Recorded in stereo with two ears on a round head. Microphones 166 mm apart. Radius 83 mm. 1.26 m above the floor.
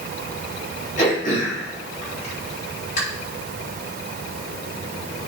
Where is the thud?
I don't hear a thud.